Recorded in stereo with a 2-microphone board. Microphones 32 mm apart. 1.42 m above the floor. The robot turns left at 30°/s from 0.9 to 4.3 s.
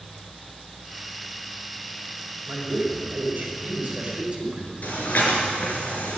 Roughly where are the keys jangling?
No keys jangling in this recording.